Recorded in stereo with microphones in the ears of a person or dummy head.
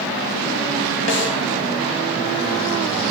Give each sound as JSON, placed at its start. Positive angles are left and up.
{"t": 1.1, "sound": "a snare drum", "side_deg": 65, "distance_m": 1.7}